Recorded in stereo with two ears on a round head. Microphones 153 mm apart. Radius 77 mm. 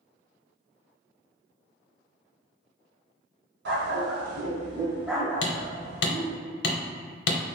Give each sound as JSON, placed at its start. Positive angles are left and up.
{"t": 3.6, "sound": "a dog barking", "side_deg": -70, "distance_m": 1.0}
{"t": 5.4, "sound": "hammering", "side_deg": 65, "distance_m": 0.8}